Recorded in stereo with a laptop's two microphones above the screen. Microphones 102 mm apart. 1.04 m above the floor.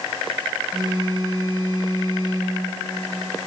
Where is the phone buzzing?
45° right (ahead or behind), 2 m.